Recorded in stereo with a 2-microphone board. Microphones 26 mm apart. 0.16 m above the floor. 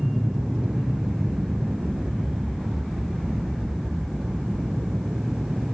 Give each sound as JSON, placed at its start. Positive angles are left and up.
{"t": 0.0, "sound": "an aircraft", "side_deg": -70}